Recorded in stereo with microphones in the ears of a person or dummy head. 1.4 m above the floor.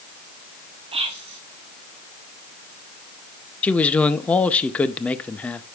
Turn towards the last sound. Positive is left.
turn(degrees=10)  # may be behind; listen again after turning